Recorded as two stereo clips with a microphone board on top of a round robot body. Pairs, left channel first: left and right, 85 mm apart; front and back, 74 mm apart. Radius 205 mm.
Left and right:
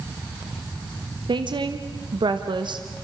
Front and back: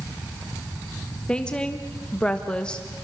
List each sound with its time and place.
1.3 s a woman speaking: 75° right, 1.6 m